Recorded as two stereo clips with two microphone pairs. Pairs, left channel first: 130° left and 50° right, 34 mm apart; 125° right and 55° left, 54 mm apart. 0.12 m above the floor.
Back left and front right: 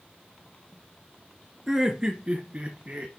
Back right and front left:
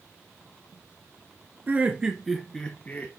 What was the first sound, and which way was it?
Laughter, 15° left.